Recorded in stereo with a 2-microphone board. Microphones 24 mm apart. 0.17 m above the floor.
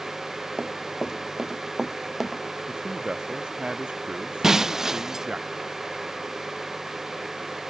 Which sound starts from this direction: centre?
Breaking glass, at 4.4 s.